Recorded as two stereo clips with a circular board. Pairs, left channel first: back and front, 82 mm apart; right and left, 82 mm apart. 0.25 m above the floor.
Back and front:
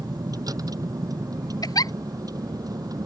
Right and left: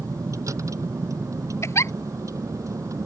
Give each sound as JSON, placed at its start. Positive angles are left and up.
{"t": 0.0, "sound": "a vehicle", "azimuth_deg": 40}
{"t": 1.6, "sound": "a giggle", "azimuth_deg": -145}